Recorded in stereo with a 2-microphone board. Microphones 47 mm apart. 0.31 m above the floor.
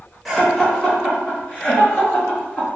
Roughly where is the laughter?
Centre.